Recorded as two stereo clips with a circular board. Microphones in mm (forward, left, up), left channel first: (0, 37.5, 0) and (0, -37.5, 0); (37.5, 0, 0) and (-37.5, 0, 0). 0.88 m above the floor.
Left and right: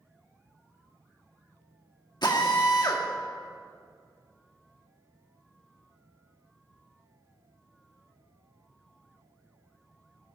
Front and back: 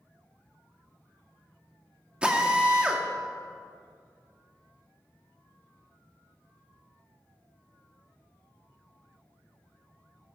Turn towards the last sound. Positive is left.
turn(degrees=105)